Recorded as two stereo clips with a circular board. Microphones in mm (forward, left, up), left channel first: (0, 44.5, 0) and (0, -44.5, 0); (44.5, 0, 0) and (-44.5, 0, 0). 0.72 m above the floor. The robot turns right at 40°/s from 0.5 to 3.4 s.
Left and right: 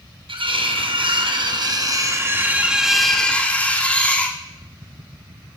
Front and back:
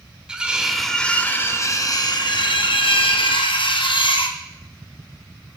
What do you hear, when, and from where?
0.3 s cutlery clinking: 100° right, 0.5 m; by 4.4 s 15° left, 0.5 m